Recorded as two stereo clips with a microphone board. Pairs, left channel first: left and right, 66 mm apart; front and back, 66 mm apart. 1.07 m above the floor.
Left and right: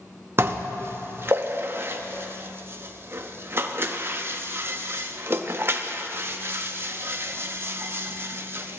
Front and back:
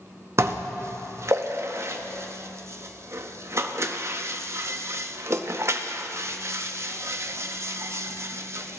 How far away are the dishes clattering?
About 0.6 m.